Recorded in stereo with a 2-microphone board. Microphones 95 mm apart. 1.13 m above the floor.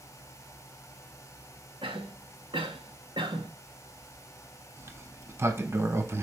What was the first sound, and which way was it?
A cough, 65° right (ahead or behind).